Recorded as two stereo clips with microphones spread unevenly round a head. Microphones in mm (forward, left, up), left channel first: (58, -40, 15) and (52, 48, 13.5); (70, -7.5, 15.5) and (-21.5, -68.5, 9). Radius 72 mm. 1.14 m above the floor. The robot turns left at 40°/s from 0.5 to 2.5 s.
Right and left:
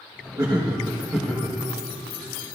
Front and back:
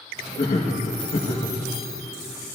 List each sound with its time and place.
0.4 s laughter: 45° left, 1.5 m; by 1.6 s straight ahead, 1.5 m